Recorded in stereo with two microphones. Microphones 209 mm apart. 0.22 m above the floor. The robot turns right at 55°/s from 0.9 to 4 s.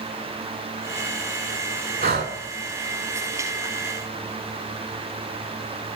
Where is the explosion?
No explosion in this recording.